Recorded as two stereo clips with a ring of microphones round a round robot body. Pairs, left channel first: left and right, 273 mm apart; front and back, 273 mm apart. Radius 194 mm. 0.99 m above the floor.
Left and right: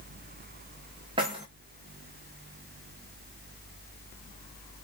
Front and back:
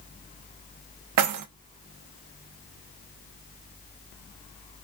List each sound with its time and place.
1.2 s keys jangling: 165° right, 0.5 m